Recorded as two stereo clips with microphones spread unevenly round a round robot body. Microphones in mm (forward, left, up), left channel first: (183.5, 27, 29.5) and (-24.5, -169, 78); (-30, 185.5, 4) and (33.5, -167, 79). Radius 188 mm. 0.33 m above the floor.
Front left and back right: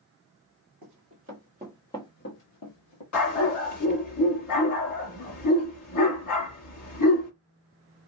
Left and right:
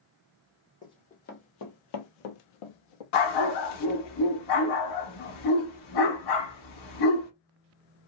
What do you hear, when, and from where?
0.8 s running footsteps: 175° right, 1.1 m; by 3.0 s 75° left, 1.0 m
3.1 s a dog barking: 90° left, 1.2 m